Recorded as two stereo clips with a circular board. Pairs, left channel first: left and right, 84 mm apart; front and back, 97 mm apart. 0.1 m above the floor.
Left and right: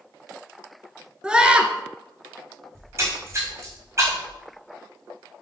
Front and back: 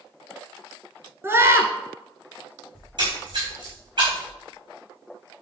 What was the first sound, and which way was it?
A scream, 155° right.